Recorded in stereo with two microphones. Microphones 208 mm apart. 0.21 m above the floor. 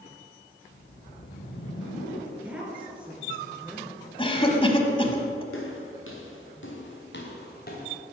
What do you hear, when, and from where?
0.6 s a whoosh: 75° left (ahead or behind), 3 m
2.3 s a woman speaking: 5° right (ahead or behind), 3 m
4.2 s a cough: 25° left (ahead or behind), 1.1 m
5.5 s footsteps: 85° left, 2.5 m; by 8.0 s 45° left (ahead or behind), 2.5 m